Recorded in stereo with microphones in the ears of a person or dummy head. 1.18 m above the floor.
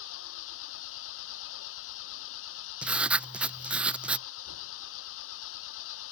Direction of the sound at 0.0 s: 75° left (ahead or behind).